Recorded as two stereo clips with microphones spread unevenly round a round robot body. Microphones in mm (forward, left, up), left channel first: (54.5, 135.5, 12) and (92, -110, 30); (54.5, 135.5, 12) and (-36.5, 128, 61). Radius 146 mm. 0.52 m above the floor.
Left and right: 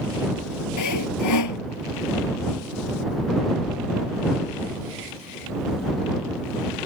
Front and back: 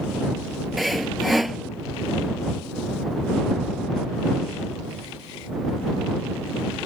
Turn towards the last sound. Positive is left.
turn(degrees=100)